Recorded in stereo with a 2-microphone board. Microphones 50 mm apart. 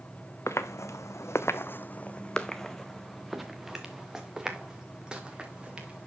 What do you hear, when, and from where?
0.5 s footsteps: 70° left (ahead or behind), 0.8 m; by 6.1 s 20° right (ahead or behind), 2.5 m